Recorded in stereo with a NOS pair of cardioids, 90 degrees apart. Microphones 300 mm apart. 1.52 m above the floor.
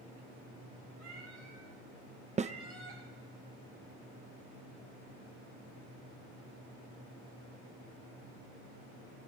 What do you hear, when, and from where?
1.0 s a cat meowing: 65° right, 7 m; by 3.0 s 45° right, 5.5 m
2.4 s a snare drum: 25° right, 0.5 m